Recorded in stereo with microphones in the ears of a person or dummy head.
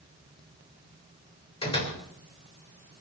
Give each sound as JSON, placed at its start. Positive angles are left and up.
{"t": 1.6, "sound": "a door slam", "side_deg": 30, "distance_m": 3.5}